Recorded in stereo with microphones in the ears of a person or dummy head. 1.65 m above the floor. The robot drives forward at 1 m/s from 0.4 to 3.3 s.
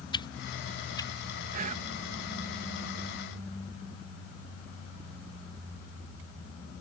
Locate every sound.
0.1 s a whoosh: 30° left (ahead or behind); by 1.1 s 25° left (ahead or behind)
1.5 s whispering: 50° right (ahead or behind); by 1.9 s 40° right (ahead or behind)